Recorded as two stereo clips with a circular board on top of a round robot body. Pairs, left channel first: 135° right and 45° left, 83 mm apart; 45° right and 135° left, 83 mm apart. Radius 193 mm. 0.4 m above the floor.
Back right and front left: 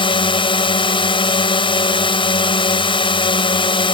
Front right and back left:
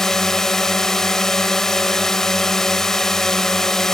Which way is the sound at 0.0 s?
130° right.